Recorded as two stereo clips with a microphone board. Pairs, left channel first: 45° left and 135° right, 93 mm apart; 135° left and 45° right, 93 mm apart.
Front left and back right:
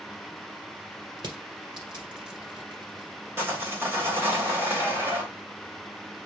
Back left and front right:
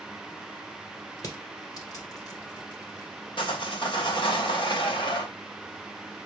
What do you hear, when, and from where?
1.2 s crushing: 175° right, 2.5 m
3.4 s sawing: 160° left, 2.5 m